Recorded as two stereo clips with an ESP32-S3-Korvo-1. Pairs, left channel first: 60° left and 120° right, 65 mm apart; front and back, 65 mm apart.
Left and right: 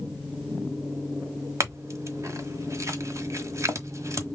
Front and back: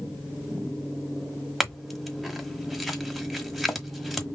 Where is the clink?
95° right, 1.2 m.